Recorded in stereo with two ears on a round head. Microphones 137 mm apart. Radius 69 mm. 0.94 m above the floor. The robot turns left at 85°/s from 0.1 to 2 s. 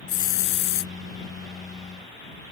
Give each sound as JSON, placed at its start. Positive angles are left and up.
{"t": 0.1, "sound": "a hiss", "azimuth_deg": 125}